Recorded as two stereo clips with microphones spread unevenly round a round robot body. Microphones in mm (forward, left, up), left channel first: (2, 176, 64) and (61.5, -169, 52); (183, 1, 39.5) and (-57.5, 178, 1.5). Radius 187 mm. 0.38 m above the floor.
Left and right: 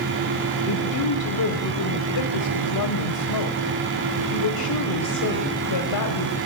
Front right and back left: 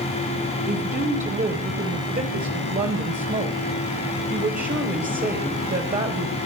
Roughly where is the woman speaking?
Left.